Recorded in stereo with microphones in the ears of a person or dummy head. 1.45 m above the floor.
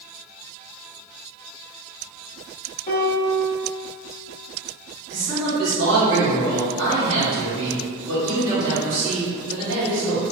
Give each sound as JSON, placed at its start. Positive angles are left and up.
{"t": 2.9, "sound": "a piano", "side_deg": 25, "distance_m": 0.5}
{"t": 5.1, "sound": "a man speaking", "side_deg": -75, "distance_m": 1.8}